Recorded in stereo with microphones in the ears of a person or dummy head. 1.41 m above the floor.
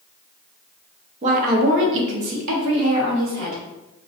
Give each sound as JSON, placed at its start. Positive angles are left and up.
{"t": 1.2, "sound": "a woman speaking", "side_deg": -40, "distance_m": 0.6}